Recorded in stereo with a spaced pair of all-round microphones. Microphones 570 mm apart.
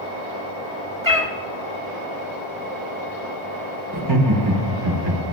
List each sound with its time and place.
1.0 s a cat meowing: 35° right (ahead or behind), 1.5 m
3.9 s laughter: 55° right (ahead or behind), 1.5 m